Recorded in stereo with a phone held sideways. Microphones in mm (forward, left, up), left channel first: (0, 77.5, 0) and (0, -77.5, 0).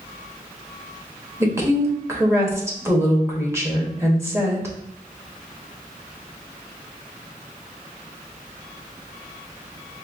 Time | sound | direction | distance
1.4 | a woman speaking | 15° right (ahead or behind) | 1.2 m